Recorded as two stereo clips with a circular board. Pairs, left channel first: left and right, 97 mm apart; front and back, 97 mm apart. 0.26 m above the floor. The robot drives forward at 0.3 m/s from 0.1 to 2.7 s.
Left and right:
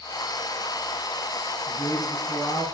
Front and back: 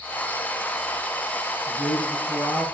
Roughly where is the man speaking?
Behind.